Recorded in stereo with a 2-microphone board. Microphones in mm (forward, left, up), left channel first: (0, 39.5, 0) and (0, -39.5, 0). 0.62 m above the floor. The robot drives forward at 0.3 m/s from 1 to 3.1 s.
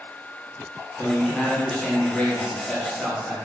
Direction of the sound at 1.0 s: 15° left (ahead or behind).